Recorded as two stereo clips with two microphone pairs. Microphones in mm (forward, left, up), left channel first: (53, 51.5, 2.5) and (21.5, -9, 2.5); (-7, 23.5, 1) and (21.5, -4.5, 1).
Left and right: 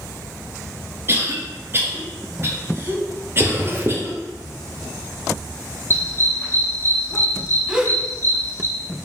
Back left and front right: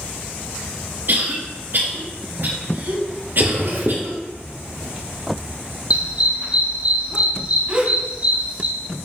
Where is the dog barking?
10° left, 2.5 m.